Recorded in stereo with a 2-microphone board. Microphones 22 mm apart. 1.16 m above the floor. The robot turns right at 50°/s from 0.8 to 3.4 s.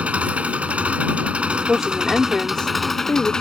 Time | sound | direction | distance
0.0 | an engine running | 95° right | ?
1.7 | a woman speaking | straight ahead | ?